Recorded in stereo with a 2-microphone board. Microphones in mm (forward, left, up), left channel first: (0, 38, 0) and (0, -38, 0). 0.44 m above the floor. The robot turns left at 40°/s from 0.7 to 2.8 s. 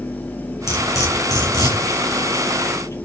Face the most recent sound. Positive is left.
turn(degrees=55)  # may be behind; listen again after turning